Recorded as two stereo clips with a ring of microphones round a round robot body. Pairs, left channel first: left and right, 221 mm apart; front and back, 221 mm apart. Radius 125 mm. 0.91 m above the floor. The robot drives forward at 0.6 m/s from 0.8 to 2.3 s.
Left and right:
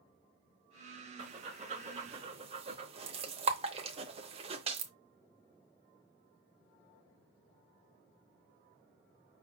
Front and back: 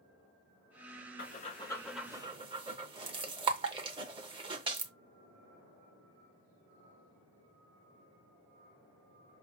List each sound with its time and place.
1.2 s breathing: 30° right, 0.7 m; by 4.9 s 130° right, 0.6 m